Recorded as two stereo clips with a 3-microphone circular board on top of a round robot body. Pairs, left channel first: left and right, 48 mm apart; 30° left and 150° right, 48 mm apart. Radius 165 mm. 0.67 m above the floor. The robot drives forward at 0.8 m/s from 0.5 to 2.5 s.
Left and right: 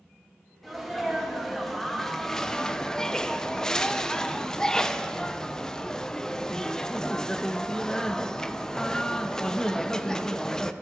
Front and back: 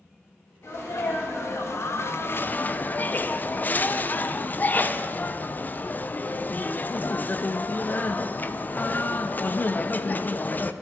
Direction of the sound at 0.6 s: 5° left.